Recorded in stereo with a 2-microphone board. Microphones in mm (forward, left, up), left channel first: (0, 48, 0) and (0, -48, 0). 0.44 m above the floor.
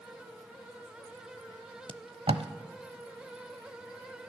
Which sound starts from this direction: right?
Tape being pulled, at 1.9 s.